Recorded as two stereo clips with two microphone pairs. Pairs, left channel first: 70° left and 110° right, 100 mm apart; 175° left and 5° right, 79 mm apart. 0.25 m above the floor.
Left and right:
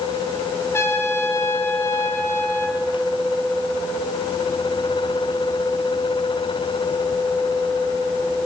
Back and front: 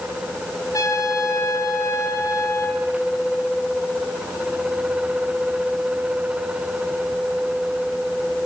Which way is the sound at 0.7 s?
135° left.